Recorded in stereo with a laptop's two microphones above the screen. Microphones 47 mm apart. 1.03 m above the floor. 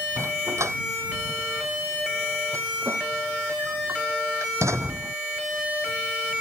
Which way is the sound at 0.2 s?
85° right.